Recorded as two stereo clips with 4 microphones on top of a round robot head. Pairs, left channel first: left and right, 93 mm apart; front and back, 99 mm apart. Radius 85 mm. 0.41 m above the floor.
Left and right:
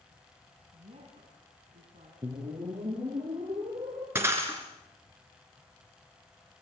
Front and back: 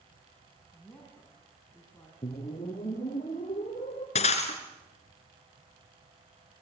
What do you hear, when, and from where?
0.7 s a woman speaking: 85° right, 4.5 m
2.2 s a whoosh: 45° right, 5.5 m
4.2 s breaking glass: 20° right, 3.5 m